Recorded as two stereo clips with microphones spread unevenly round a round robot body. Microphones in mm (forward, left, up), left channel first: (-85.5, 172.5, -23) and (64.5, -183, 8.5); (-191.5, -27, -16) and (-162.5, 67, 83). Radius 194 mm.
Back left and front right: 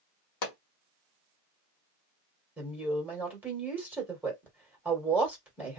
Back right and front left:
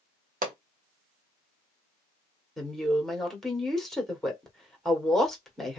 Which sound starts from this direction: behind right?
A woman speaking, at 2.6 s.